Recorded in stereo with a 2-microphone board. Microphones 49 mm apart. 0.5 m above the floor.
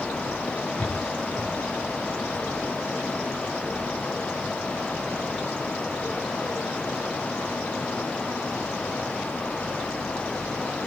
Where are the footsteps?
25° left (ahead or behind), 4 m; by 3.9 s 45° left (ahead or behind), 3.5 m.